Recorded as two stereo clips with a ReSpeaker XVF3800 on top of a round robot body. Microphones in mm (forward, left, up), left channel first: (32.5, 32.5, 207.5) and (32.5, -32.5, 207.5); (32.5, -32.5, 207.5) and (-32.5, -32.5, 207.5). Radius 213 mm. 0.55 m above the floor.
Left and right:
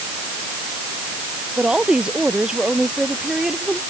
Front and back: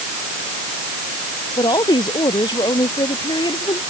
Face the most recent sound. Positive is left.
turn(degrees=-5)